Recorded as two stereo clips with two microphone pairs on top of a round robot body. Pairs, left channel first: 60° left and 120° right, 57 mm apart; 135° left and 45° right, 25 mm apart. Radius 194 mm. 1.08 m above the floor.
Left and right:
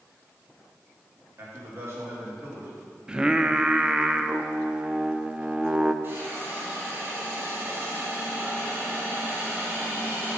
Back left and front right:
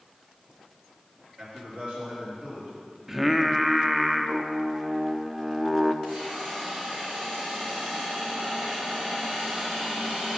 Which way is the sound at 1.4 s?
75° right.